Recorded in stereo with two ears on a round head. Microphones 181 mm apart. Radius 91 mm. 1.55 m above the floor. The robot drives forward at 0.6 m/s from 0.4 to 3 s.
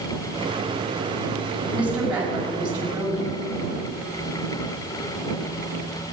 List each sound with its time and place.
1.7 s a woman speaking: 10° right (ahead or behind), 4.5 m; by 3.3 s 5° right (ahead or behind), 5.5 m